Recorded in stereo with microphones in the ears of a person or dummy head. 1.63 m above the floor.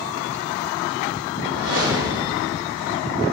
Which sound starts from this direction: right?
A whoosh, at 1.4 s.